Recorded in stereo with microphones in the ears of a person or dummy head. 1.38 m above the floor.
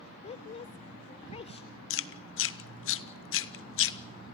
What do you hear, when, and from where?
0.2 s a woman speaking: 35° left (ahead or behind), 0.6 m
1.9 s chewing: 65° left (ahead or behind), 0.9 m